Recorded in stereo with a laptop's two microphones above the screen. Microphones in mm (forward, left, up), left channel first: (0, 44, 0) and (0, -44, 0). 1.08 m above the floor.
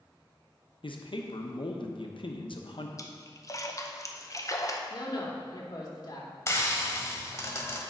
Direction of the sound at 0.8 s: 65° left (ahead or behind).